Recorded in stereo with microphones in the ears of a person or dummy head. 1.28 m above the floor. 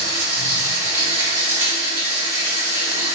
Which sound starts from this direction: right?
Running water, at 0.0 s.